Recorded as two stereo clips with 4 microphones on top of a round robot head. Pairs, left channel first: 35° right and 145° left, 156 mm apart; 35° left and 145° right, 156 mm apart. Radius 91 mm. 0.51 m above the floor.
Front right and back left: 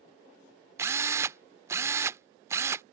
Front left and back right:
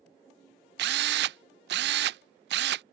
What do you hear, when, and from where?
0.8 s a drill: 145° right